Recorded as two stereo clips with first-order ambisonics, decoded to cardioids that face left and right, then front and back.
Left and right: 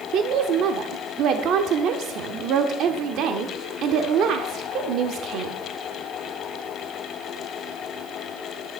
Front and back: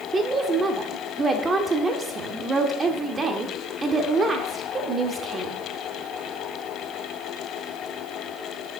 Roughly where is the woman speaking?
Behind right.